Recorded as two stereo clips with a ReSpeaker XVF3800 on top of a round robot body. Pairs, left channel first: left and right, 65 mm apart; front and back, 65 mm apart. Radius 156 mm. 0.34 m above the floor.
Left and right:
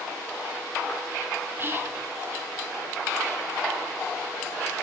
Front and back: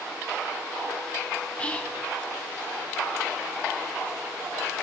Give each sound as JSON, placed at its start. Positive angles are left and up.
{"t": 1.6, "sound": "whispering", "azimuth_deg": -60, "distance_m": 1.0}